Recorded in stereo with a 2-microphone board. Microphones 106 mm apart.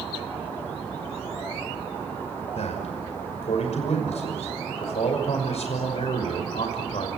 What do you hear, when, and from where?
2.5 s a man speaking: 75° left (ahead or behind), 5.5 m